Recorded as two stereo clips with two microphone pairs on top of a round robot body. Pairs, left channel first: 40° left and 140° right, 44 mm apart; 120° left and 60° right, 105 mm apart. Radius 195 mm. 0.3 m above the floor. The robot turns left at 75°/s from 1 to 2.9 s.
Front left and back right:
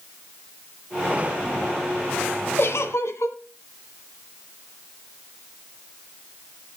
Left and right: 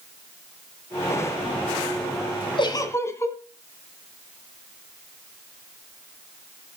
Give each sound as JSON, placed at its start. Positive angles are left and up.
{"t": 2.6, "sound": "a giggle", "azimuth_deg": 75, "distance_m": 1.5}